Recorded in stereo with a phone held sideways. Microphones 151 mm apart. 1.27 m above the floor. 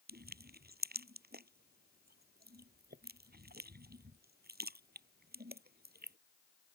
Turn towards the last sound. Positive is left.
turn(degrees=-75)  # may be behind; listen again after turning